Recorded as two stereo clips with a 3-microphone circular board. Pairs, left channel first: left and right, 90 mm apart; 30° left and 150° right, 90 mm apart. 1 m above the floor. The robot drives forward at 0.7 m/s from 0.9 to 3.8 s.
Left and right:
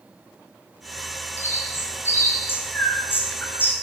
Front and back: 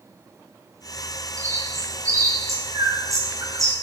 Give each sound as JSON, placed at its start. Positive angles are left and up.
{"t": 1.4, "sound": "a bird", "azimuth_deg": 155, "distance_m": 7.0}